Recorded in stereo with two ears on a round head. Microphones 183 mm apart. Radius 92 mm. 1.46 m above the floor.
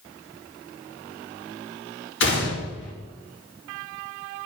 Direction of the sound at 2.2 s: 65° left (ahead or behind).